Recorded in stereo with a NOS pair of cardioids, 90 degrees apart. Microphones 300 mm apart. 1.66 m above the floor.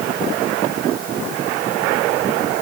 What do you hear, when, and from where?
Only background noise.